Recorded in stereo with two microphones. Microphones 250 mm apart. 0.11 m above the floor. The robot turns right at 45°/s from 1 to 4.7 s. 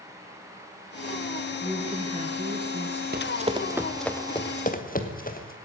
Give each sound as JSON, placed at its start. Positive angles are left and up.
{"t": 1.6, "sound": "a woman speaking", "azimuth_deg": -170, "distance_m": 1.8}
{"t": 3.1, "sound": "running footsteps", "side_deg": -40, "distance_m": 1.1}